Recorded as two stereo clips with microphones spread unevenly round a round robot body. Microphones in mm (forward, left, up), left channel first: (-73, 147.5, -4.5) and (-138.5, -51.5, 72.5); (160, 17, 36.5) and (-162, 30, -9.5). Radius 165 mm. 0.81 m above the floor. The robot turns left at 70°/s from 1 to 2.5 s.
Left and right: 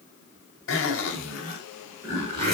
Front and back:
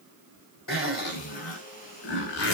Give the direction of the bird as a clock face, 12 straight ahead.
No bird in this recording.